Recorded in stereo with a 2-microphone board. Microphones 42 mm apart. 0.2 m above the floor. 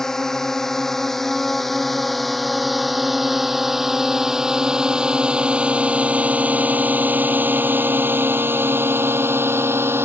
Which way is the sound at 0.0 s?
10° left (ahead or behind).